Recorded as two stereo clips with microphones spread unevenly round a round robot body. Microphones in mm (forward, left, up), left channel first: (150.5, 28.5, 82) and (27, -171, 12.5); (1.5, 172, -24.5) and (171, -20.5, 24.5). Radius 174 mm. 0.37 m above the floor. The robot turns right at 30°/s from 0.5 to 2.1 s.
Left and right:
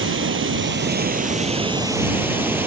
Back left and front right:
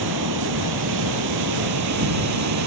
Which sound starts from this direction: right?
Running water, at 0.0 s.